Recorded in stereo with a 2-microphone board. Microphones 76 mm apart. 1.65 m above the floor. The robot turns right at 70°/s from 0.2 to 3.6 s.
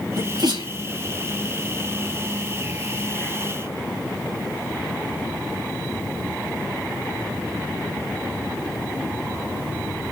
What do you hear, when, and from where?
0.2 s a sneeze: 55° right (ahead or behind), 3 m; by 0.7 s 85° right, 3 m